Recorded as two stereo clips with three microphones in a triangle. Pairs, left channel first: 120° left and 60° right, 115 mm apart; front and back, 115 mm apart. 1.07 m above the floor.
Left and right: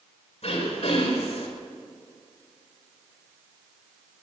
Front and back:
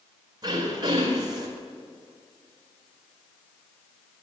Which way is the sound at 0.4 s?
130° left.